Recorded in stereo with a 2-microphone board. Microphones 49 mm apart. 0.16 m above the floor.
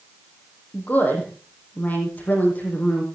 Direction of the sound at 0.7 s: 35° left (ahead or behind).